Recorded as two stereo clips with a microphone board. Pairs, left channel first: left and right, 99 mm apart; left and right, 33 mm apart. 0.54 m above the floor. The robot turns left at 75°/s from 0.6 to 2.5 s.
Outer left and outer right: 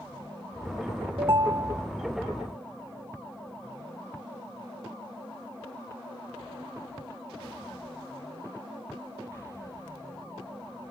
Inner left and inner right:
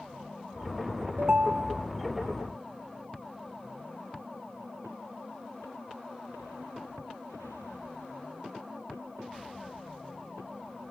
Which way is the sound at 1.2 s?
115° right.